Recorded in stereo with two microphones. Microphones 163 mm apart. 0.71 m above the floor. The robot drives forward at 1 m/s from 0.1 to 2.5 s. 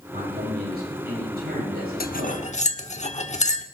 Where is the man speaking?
80° right, 9 m; by 2.4 s 65° right (ahead or behind), 10 m.